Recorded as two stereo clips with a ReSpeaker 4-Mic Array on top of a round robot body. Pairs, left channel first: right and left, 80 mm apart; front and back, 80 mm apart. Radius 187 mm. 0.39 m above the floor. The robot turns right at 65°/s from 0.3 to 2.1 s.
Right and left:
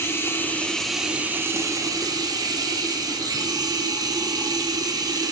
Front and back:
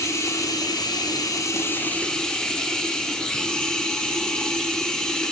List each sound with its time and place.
0.0 s running water: 40° right, 1.2 m; by 5.3 s 80° left, 1.2 m